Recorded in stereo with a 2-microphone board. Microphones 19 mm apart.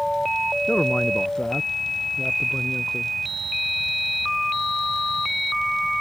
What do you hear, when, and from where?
0.7 s a man speaking: 55° left (ahead or behind); by 3.1 s 60° left (ahead or behind)